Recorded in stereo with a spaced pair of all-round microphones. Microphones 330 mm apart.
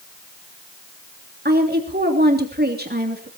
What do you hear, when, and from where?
1.4 s a woman speaking: 30° right (ahead or behind), 3 m